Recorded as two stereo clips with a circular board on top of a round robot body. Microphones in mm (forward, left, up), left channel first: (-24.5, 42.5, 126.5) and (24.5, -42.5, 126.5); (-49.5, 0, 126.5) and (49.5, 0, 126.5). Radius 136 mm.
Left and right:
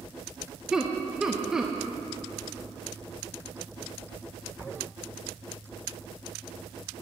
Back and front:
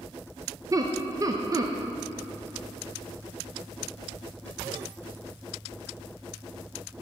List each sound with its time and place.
0.7 s laughter: 20° left, 0.7 m